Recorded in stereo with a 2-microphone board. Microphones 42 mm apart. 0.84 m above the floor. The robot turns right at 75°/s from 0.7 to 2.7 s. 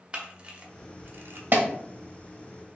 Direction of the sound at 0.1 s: 25° right (ahead or behind).